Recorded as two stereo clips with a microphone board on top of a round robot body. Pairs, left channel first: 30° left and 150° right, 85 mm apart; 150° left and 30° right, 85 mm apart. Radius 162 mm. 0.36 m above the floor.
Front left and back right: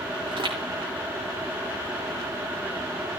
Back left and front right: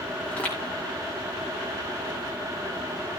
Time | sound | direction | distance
0.3 | footsteps | 135° right | 6 m